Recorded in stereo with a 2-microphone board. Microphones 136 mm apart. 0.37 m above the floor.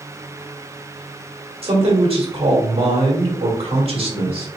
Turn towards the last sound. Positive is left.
turn(degrees=-45)  # may be behind; listen again after turning